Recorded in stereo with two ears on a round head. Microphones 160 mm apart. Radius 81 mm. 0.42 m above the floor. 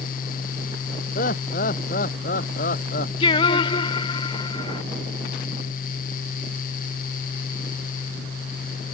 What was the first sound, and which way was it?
Laughter, 45° left (ahead or behind).